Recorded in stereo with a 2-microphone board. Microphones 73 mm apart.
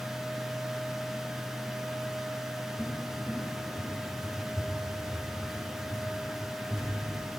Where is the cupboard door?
5° right (ahead or behind), 3 m.